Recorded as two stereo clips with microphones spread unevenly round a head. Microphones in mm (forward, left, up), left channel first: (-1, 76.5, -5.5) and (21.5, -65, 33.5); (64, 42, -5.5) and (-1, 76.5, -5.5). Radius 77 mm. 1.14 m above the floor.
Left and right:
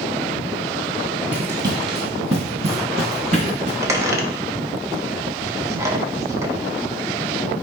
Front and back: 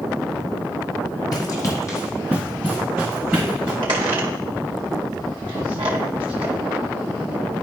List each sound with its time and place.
1.3 s running footsteps: 20° right, 1.8 m; by 3.7 s 125° right, 3.5 m
3.8 s a squeak: 155° right, 0.7 m